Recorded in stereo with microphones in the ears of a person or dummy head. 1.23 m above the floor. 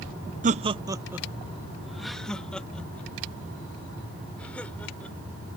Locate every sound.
0.4 s laughter: 40° right (ahead or behind); by 5.2 s 10° left (ahead or behind)